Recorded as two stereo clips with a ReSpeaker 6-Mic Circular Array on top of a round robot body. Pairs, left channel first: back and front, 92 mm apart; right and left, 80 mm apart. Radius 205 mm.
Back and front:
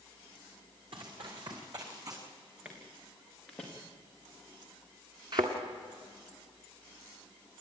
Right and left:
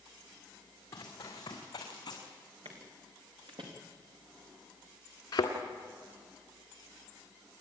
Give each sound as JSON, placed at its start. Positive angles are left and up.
{"t": 0.9, "sound": "running footsteps", "azimuth_deg": -30, "distance_m": 3.5}
{"t": 2.6, "sound": "footsteps", "azimuth_deg": 80, "distance_m": 3.5}
{"t": 5.3, "sound": "a thud", "azimuth_deg": -40, "distance_m": 1.6}